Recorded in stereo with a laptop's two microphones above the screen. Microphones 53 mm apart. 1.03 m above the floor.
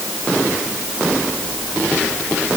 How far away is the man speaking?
No man speaking in this recording.